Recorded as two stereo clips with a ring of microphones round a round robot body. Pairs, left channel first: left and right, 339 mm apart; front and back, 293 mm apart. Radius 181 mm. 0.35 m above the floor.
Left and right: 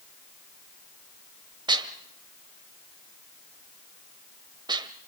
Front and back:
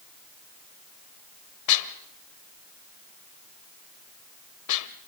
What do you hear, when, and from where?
1.7 s dishes clattering: 15° right, 1.2 m